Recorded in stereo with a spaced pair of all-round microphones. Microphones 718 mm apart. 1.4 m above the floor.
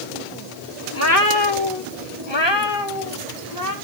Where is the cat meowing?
20° left (ahead or behind), 1.5 m; by 3.8 s 30° left (ahead or behind), 4 m.